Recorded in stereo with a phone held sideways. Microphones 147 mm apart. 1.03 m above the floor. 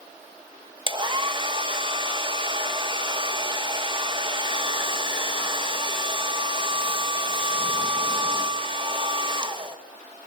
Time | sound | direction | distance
0.9 | a hair dryer | 35° right (ahead or behind) | 1.5 m